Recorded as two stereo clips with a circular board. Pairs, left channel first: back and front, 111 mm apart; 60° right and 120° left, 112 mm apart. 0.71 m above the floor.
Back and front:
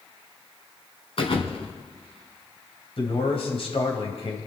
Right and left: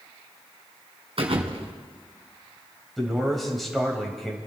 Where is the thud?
150° left, 1.9 m.